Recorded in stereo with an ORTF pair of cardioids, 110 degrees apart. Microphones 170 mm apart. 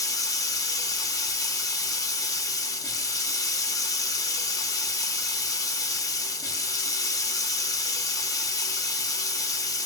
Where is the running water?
20° left, 0.9 m.